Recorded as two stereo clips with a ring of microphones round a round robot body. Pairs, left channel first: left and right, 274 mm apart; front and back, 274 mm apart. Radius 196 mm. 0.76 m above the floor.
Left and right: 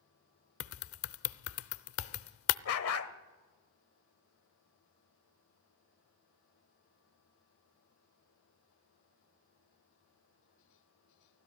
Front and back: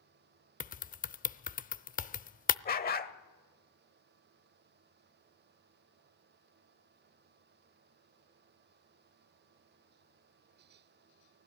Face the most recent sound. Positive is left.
turn(degrees=60)